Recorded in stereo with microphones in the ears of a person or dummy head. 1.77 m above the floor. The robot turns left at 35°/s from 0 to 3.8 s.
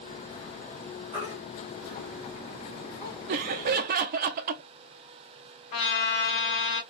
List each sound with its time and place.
1.1 s a baby crying: 25° right (ahead or behind), 2.5 m; by 3.2 s 35° left (ahead or behind), 2.5 m
3.3 s laughter: 50° right (ahead or behind), 0.6 m; by 4.6 s 45° right (ahead or behind), 0.6 m
5.7 s a trumpet: 45° left (ahead or behind), 1.7 m